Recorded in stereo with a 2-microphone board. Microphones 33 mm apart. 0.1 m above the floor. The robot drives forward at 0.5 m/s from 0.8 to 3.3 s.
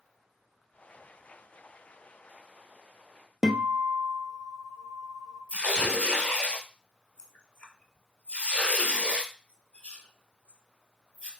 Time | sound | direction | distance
3.4 | a guitar | 15° right (ahead or behind) | 0.6 m
5.5 | tearing paper | 35° left (ahead or behind) | 0.8 m